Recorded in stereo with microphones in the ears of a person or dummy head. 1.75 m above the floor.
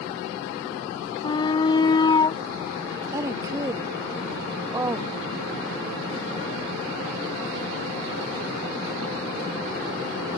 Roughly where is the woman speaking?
Centre.